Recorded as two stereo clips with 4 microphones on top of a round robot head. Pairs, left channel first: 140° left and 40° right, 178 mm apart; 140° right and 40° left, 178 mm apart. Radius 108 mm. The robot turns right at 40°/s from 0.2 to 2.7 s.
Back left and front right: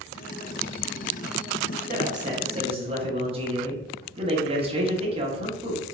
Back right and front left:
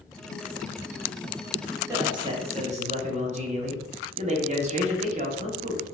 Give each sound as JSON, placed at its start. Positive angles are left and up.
{"t": 1.9, "sound": "a man speaking", "azimuth_deg": -25, "distance_m": 1.1}